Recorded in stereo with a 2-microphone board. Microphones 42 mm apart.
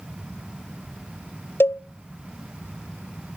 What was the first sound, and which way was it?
A cowbell, 65° left (ahead or behind).